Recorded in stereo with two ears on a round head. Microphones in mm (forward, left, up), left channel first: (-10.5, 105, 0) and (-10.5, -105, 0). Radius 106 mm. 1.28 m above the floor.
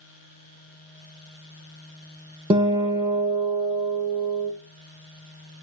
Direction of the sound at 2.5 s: 20° right (ahead or behind).